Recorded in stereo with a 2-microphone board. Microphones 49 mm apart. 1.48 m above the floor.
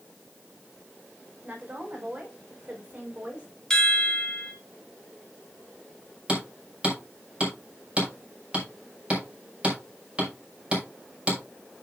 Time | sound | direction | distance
1.4 | a woman speaking | 25° right (ahead or behind) | 5.5 m
3.7 | a chime | 10° left (ahead or behind) | 3.5 m
6.3 | hammering | 25° right (ahead or behind) | 6 m